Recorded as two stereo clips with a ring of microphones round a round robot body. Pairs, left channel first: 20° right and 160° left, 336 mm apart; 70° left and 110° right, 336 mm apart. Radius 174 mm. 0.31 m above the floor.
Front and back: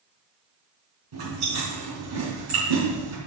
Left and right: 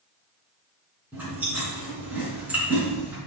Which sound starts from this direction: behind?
Chewing, at 1.1 s.